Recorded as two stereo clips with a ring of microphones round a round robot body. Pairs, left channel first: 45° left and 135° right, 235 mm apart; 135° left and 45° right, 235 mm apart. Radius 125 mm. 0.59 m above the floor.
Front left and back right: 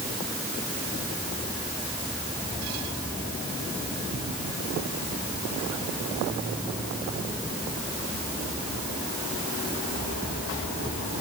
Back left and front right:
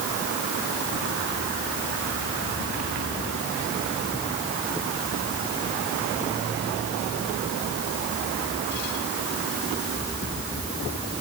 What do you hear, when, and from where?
Only background noise.